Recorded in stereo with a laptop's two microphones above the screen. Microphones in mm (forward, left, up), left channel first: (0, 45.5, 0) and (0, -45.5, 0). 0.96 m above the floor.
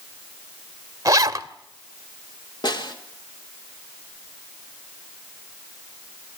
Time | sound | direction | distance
1.1 | a zipper | 40° right (ahead or behind) | 1.3 m
2.6 | a snare drum | 60° left (ahead or behind) | 3 m